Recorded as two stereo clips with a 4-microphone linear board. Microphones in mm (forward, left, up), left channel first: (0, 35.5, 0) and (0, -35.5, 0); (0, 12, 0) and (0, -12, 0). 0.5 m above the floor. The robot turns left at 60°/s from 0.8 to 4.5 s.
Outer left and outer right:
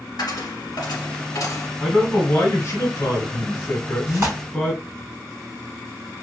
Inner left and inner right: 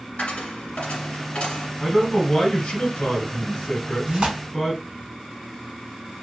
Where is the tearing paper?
35° right (ahead or behind), 1.7 m; by 4.4 s 45° right (ahead or behind), 1.7 m.